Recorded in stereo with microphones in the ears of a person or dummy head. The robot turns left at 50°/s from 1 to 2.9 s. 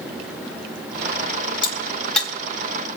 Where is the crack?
30° left (ahead or behind), 3.5 m; by 2.3 s 5° right (ahead or behind), 3.5 m.